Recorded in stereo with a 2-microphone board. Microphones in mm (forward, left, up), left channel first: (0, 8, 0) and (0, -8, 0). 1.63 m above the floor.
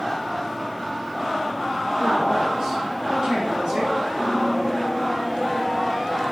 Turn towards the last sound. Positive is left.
turn(degrees=-60)  # may be behind; listen again after turning